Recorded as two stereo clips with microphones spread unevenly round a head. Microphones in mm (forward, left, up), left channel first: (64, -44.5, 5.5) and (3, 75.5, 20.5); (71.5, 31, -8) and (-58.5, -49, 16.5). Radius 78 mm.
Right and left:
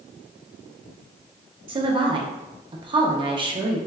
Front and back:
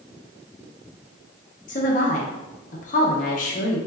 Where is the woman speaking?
65° left, 0.7 m.